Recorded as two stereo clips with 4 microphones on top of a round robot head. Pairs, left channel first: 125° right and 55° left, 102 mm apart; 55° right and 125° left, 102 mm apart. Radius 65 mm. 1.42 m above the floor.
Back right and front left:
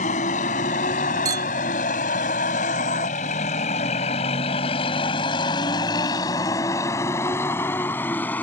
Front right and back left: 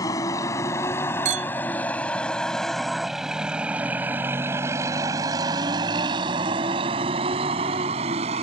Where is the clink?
110° left.